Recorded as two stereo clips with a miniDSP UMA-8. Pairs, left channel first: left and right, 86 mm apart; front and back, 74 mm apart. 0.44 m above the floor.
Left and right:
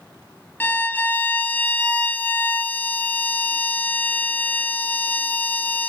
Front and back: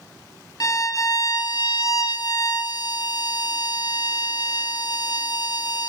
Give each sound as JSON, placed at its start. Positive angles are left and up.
{"t": 0.6, "sound": "a violin", "azimuth_deg": 25, "distance_m": 0.6}